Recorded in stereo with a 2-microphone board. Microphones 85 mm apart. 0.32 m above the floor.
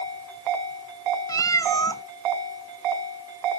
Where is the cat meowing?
45° left (ahead or behind), 0.6 m.